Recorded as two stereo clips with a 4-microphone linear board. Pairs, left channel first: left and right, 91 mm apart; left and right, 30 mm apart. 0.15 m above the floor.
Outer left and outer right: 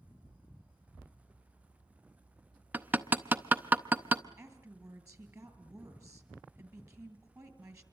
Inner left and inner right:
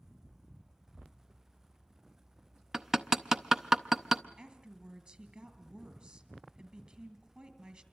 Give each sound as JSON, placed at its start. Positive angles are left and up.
{"t": 2.7, "sound": "hammering", "side_deg": -20, "distance_m": 0.7}
{"t": 4.4, "sound": "a woman speaking", "side_deg": -35, "distance_m": 3.0}